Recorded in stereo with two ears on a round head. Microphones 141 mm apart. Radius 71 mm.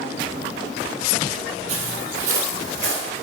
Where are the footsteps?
45° right (ahead or behind), 1.6 m; by 3.0 s 50° right (ahead or behind), 3 m.